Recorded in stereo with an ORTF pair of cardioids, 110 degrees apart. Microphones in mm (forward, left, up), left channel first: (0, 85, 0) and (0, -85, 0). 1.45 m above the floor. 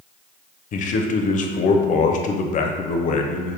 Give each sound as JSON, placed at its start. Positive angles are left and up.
{"t": 0.7, "sound": "a man speaking", "azimuth_deg": 50, "distance_m": 0.6}